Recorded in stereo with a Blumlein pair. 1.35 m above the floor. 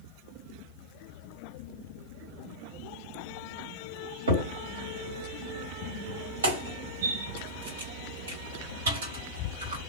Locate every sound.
4.3 s a crack: 65° right, 1.6 m